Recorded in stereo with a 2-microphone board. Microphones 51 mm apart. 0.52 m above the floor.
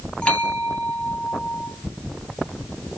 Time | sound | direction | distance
0.2 | a bell | 25° left (ahead or behind) | 3 m